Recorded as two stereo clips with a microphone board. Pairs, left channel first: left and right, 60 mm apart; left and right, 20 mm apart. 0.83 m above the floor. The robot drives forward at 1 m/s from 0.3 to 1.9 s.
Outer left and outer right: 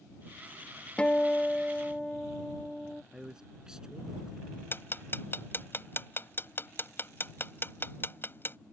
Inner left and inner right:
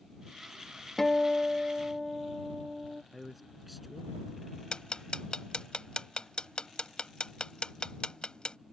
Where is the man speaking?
10° right (ahead or behind).